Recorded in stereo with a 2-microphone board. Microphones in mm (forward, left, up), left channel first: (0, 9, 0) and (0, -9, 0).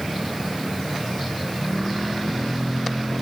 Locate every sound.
Only background noise.